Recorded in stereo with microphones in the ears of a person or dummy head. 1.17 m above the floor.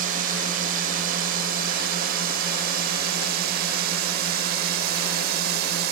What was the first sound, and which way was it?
A drone, 50° right (ahead or behind).